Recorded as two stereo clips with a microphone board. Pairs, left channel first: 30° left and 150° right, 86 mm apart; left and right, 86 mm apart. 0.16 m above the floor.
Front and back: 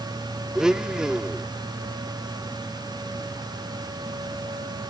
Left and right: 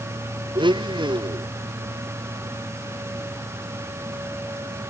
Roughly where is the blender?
Right.